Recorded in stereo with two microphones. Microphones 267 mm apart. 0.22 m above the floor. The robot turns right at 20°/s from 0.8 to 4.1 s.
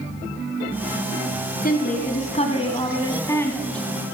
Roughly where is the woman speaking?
Behind left.